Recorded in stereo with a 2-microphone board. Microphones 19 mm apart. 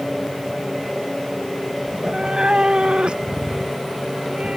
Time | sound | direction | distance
1.9 | a cat meowing | 25° right (ahead or behind) | ?